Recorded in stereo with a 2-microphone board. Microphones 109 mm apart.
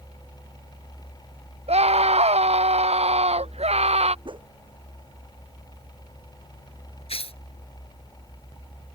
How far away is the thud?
I don't hear a thud.